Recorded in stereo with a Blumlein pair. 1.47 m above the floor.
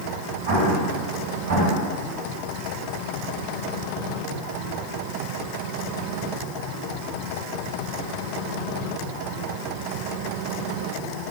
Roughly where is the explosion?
Ahead right.